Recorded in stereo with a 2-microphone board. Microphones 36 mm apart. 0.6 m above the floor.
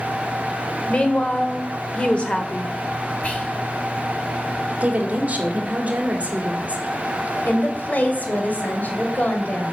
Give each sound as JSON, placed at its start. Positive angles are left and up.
{"t": 0.9, "sound": "a woman speaking", "side_deg": 30, "distance_m": 1.6}
{"t": 3.2, "sound": "whispering", "side_deg": 40, "distance_m": 2.5}
{"t": 4.8, "sound": "a woman speaking", "side_deg": -40, "distance_m": 1.9}
{"t": 7.5, "sound": "a woman speaking", "side_deg": 50, "distance_m": 2.0}